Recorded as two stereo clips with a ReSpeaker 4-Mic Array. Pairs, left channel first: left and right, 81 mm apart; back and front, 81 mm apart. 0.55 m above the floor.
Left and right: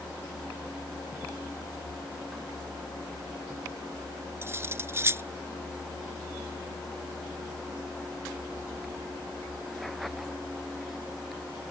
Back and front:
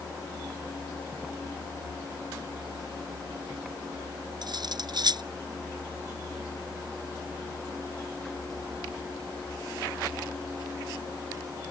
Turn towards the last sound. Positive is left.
turn(degrees=-30)